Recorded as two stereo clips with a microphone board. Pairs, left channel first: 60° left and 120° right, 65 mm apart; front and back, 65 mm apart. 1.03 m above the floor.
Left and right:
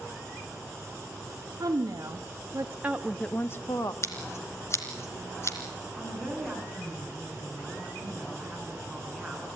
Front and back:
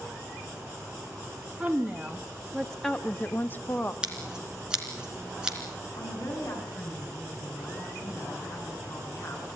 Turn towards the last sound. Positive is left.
turn(degrees=-25)